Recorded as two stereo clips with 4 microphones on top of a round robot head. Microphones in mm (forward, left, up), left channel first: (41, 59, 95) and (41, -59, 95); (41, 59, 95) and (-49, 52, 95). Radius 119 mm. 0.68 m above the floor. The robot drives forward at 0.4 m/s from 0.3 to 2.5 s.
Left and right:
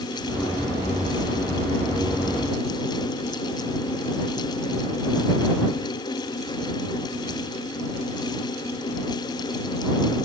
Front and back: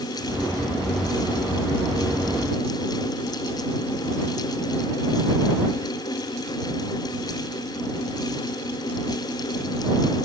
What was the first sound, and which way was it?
Only background noise.